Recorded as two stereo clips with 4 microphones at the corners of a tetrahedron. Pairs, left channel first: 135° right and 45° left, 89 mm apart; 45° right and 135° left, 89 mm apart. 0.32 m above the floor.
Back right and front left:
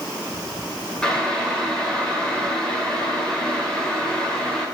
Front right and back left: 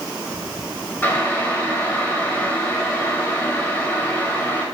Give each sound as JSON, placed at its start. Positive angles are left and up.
{"t": 1.0, "sound": "boiling", "azimuth_deg": -65, "distance_m": 1.6}